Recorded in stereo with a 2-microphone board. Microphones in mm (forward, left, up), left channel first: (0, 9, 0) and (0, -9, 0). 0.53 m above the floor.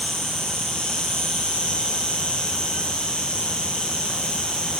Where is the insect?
75° left (ahead or behind), 7.5 m.